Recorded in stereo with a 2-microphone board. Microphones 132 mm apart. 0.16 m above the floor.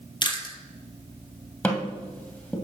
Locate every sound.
0.2 s chewing: 35° left (ahead or behind), 1.1 m
1.6 s tapping: 10° left (ahead or behind), 1.9 m